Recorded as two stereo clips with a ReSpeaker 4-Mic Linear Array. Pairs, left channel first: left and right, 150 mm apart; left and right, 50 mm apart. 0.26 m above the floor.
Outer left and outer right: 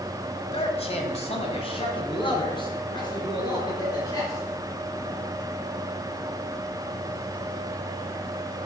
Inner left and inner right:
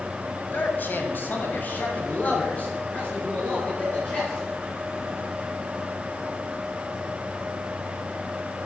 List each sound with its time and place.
0.5 s a man speaking: 40° left (ahead or behind), 1.3 m; by 5.2 s 25° left (ahead or behind), 5.5 m